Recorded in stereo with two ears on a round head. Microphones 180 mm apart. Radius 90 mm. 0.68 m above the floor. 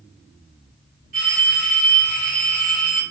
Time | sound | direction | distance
1.1 | a phone ringing | 45° right (ahead or behind) | 1.4 m